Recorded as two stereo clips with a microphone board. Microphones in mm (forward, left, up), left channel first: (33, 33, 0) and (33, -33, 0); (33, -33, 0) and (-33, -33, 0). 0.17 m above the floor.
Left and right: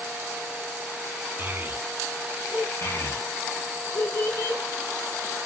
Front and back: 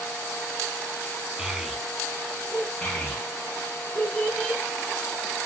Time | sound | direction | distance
1.4 | a child speaking | 110° right | 0.7 m
2.8 | a child speaking | 70° left | 1.3 m